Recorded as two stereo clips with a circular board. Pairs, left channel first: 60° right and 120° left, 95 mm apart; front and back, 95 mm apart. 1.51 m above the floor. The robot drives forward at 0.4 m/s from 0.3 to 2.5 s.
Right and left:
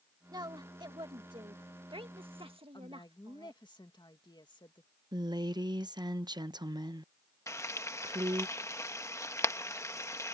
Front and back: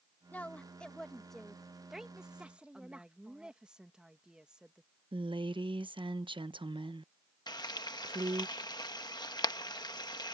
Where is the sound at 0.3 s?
75° left; by 3.6 s 100° left.